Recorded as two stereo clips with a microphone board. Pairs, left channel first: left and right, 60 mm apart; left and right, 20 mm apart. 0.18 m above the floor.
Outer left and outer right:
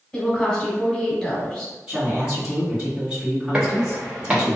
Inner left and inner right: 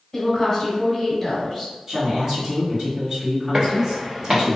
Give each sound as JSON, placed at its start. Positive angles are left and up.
{"t": 0.1, "sound": "a woman speaking", "side_deg": 15, "distance_m": 1.1}
{"t": 1.9, "sound": "a woman speaking", "side_deg": -10, "distance_m": 1.9}
{"t": 3.5, "sound": "footsteps", "side_deg": -15, "distance_m": 1.1}